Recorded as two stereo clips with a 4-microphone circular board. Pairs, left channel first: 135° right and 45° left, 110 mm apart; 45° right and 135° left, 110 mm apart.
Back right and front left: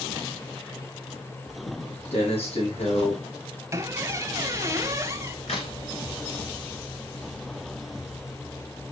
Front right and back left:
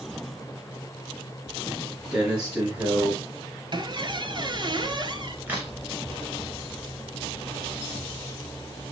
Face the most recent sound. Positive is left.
turn(degrees=-150)